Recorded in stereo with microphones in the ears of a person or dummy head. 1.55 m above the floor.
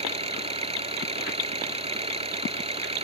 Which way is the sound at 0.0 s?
30° right (ahead or behind).